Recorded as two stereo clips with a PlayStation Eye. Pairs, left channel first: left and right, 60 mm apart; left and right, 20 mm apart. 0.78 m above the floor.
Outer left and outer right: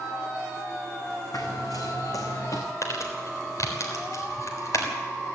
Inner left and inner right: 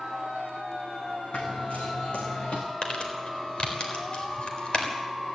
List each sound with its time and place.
1.3 s running footsteps: 75° left (ahead or behind), 2.5 m; by 2.6 s 60° left (ahead or behind), 3 m
2.8 s crumpling: 55° left (ahead or behind), 3.5 m